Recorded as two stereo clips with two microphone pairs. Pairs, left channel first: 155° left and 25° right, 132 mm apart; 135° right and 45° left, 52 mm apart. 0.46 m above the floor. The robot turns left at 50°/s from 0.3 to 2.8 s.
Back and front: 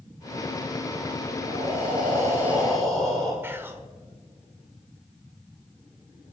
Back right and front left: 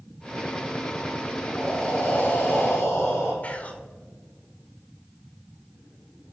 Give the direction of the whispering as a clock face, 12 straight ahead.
3 o'clock.